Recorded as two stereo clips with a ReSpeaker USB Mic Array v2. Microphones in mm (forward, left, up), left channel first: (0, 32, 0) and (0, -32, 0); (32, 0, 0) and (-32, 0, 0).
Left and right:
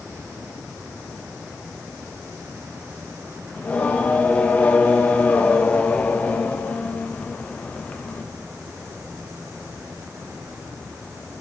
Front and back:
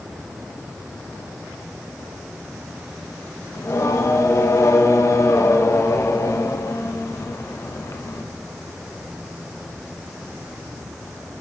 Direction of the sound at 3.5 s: 25° left.